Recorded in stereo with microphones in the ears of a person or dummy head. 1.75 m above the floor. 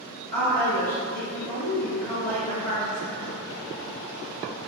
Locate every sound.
0.3 s a woman speaking: 10° left (ahead or behind), 1.1 m